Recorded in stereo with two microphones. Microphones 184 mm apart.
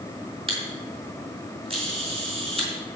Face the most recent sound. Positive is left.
turn(degrees=-30)  # may be behind; listen again after turning